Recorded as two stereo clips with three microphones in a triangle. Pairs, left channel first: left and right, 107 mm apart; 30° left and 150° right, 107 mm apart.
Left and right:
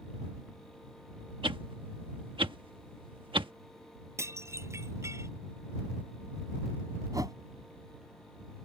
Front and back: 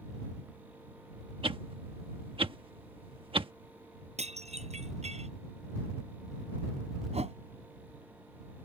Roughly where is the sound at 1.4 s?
Behind right.